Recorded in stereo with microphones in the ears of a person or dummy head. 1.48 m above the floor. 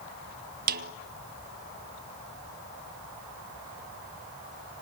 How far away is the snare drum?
About 1.0 m.